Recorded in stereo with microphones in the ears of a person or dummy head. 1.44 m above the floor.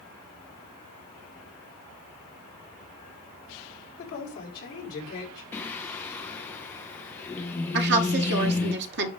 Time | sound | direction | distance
4.0 | a woman speaking | 50° left (ahead or behind) | 5 m
5.5 | singing | 15° left (ahead or behind) | 1.0 m
7.7 | a woman speaking | 65° right (ahead or behind) | 1.6 m